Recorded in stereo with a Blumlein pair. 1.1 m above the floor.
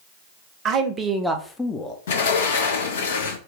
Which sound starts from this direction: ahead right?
A man speaking, at 0.7 s.